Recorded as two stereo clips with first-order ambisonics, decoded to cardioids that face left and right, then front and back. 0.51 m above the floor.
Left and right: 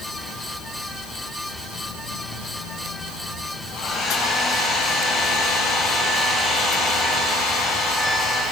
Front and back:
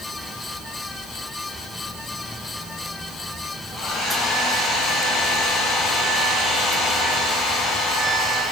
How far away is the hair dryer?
About 5.5 m.